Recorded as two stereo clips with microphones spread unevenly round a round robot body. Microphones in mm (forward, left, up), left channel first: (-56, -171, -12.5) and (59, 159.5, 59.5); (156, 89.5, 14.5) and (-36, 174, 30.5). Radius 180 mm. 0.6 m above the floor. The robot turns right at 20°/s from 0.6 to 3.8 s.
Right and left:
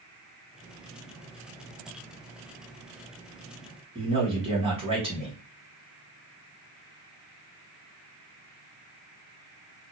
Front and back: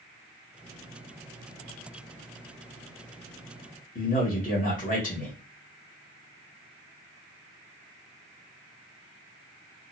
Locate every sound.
4.0 s a man speaking: 10° right, 1.6 m